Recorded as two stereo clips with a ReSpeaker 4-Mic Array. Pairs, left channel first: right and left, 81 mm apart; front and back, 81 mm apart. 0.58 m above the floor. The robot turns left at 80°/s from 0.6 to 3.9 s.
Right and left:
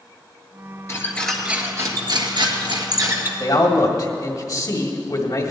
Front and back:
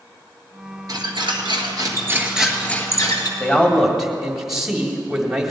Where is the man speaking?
60° right, 1.7 m; by 5.5 s 100° right, 1.7 m.